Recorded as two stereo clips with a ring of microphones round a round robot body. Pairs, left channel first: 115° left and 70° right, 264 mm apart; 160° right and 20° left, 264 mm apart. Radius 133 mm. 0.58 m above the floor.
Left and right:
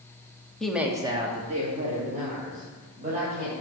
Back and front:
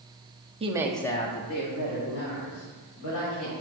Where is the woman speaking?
30° left, 1.2 m; by 3.5 s 125° right, 4.5 m.